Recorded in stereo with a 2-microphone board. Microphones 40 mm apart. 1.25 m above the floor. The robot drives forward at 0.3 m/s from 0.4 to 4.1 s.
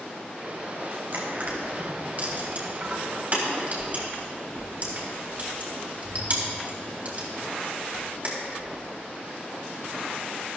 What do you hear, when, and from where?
1.1 s crushing: 50° right (ahead or behind), 3 m; by 8.7 s 40° right (ahead or behind), 3.5 m